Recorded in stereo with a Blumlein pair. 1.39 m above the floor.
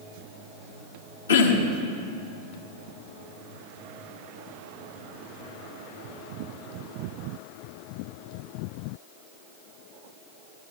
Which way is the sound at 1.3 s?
70° left.